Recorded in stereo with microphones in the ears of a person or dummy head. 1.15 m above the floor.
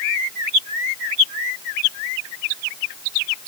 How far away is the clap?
No clap in this recording.